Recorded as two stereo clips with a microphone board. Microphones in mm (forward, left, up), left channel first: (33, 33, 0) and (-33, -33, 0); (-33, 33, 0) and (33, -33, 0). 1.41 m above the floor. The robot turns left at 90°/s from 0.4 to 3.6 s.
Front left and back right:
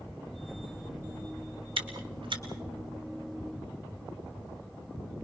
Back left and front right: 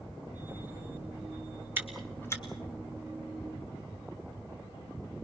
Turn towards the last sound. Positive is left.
turn(degrees=80)